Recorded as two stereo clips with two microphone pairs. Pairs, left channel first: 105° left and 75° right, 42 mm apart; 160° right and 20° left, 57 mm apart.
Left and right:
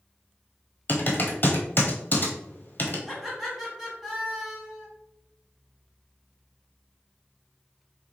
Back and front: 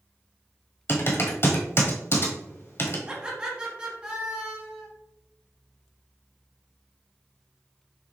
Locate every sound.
0.9 s typing on a keyboard: 155° left, 1.0 m
3.1 s laughter: 5° left, 1.2 m